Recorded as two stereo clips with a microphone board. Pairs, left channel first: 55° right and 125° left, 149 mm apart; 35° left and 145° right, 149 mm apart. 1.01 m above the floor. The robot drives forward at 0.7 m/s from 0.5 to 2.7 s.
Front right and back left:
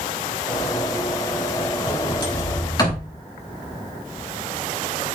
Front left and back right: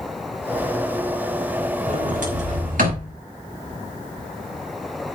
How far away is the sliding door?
About 5.5 m.